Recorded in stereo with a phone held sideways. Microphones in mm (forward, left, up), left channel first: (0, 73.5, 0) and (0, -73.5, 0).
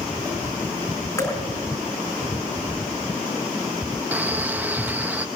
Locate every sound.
1.2 s dripping: 20° left (ahead or behind), 4.5 m
4.1 s a man speaking: 10° right (ahead or behind), 1.3 m